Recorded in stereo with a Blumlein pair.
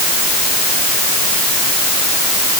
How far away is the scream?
I don't hear a scream.